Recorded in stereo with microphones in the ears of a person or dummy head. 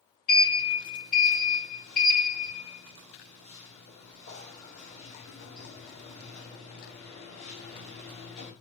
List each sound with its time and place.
0.3 s a sliding door: 35° left (ahead or behind), 1.9 m